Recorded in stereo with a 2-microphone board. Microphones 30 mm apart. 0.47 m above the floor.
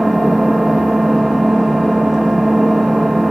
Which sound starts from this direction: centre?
An engine running, at 0.0 s.